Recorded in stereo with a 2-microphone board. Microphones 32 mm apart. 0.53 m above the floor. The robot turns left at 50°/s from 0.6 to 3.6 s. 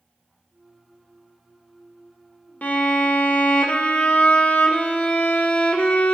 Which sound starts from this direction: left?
A violin, at 2.6 s.